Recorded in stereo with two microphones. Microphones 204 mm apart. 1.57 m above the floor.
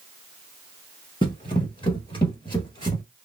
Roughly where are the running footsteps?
Left.